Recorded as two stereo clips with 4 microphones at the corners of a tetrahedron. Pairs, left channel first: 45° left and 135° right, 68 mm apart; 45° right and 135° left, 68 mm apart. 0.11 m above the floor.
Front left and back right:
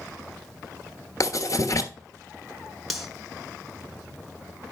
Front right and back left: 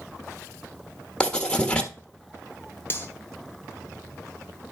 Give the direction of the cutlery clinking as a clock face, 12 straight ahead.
2 o'clock.